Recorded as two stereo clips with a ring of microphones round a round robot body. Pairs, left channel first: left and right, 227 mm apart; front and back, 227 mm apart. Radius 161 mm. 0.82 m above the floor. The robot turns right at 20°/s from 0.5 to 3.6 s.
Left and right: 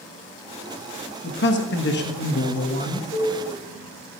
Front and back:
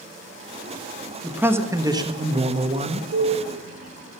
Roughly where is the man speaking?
Left.